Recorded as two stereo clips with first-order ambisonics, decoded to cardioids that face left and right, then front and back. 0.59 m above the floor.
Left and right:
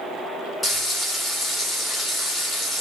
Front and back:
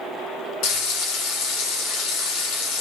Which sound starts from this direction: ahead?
Frying, at 0.6 s.